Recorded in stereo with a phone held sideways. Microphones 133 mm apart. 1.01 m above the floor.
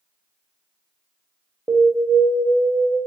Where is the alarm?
15° right (ahead or behind), 0.5 m.